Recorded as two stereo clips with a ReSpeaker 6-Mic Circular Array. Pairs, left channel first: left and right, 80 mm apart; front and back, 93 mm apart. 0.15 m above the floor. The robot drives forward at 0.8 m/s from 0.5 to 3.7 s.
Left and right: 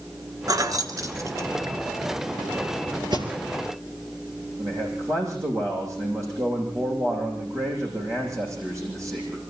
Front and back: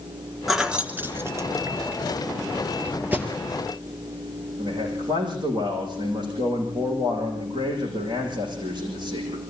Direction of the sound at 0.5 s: 90° right.